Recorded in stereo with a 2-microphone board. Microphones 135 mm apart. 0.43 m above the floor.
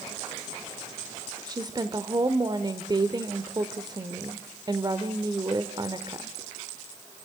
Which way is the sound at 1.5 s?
30° right (ahead or behind).